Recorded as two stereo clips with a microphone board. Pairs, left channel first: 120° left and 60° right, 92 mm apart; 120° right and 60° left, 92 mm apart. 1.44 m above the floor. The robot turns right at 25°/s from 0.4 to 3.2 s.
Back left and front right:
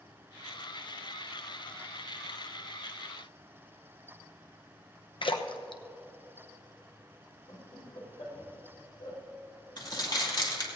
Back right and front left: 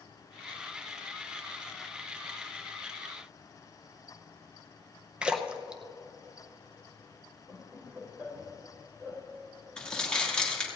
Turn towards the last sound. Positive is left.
turn(degrees=160)